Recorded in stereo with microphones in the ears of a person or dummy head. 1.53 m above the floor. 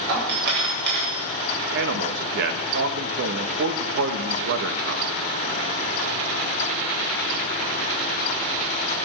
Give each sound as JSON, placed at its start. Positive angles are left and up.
{"t": 0.1, "sound": "a doorbell", "side_deg": -60, "distance_m": 7.5}
{"t": 1.7, "sound": "a man speaking", "side_deg": -65, "distance_m": 1.3}